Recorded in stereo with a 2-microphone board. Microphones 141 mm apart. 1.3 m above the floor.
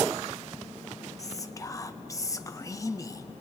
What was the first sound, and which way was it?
Whispering, 25° left (ahead or behind).